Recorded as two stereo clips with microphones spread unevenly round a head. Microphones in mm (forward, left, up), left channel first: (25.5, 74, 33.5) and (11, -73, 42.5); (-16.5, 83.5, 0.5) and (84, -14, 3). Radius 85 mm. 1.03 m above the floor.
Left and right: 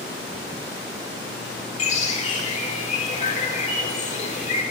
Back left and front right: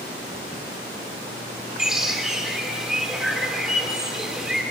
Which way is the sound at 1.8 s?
40° left.